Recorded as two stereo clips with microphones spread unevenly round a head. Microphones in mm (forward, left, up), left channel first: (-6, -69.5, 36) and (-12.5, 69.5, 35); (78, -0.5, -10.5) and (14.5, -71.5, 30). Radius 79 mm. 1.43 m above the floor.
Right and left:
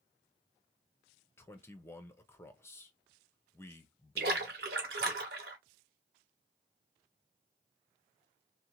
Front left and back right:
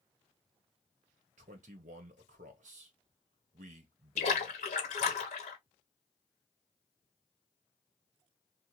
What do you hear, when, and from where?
1.4 s a man speaking: 160° right, 0.8 m
4.2 s a splash: 70° left, 1.0 m